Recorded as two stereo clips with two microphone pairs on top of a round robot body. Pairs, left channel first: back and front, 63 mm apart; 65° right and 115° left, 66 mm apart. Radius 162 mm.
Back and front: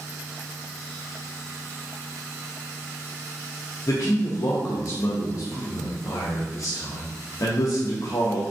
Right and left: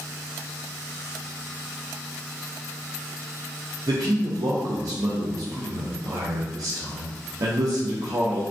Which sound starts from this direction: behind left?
A man speaking, at 3.9 s.